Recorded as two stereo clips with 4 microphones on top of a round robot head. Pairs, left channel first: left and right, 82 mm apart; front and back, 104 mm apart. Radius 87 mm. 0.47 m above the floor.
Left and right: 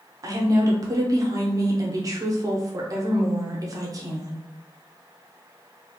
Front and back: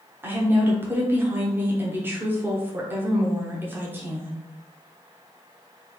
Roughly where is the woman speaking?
Behind right.